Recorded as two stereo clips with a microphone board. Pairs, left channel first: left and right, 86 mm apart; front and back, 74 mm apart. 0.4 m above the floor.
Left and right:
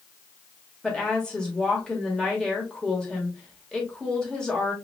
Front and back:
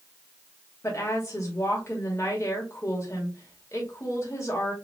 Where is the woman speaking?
15° left, 1.3 m.